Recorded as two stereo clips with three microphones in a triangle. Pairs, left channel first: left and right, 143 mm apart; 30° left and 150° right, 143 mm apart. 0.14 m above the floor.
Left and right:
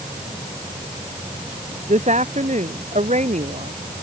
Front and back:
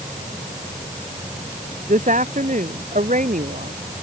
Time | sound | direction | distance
1.9 | a woman speaking | 125° right | ?